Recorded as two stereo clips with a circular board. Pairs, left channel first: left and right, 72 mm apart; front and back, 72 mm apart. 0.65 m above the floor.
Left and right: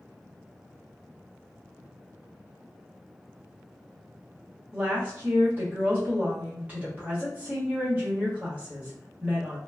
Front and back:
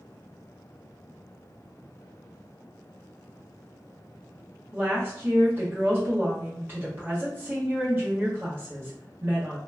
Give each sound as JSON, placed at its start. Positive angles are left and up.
{"t": 4.7, "sound": "a woman speaking", "azimuth_deg": -140, "distance_m": 1.3}